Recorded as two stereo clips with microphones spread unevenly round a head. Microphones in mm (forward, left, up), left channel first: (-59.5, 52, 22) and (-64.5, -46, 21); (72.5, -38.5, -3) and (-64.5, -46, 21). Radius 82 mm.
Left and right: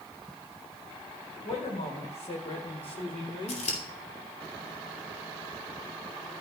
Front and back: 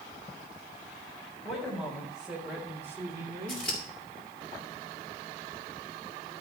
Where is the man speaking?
90° left, 5 m; by 3.6 s 130° left, 2.5 m.